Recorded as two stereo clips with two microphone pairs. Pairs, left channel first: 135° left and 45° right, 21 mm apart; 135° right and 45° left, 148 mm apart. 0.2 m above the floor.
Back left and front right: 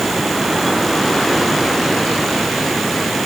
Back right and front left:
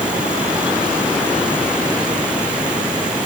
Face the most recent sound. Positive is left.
No sound to turn to.